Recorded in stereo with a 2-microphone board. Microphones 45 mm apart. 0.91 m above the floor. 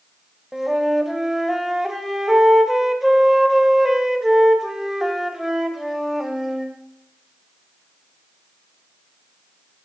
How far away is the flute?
About 0.7 m.